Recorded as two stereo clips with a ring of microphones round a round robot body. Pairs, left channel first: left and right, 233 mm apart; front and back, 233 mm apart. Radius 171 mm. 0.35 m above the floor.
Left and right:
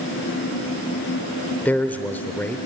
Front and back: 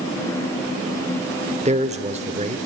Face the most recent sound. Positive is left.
turn(degrees=165)